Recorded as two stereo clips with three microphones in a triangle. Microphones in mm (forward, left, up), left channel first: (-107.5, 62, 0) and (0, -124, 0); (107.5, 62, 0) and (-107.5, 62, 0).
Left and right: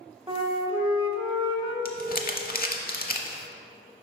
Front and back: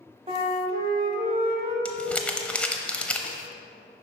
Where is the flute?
125° right, 0.9 m.